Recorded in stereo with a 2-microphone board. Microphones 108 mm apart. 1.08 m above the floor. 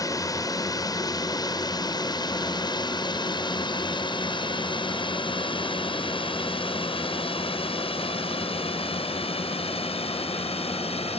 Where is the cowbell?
I don't hear a cowbell.